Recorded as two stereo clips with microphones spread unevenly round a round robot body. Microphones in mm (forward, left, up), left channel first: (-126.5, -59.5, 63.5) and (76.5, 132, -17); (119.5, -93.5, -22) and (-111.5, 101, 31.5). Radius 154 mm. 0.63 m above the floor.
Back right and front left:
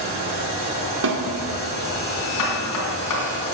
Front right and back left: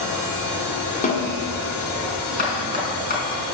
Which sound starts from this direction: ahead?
A snare drum, at 1.0 s.